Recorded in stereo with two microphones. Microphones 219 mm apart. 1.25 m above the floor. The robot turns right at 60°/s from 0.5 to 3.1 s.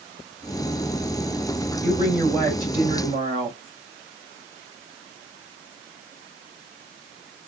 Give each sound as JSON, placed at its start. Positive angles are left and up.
{"t": 1.8, "sound": "a woman speaking", "azimuth_deg": 135, "distance_m": 3.0}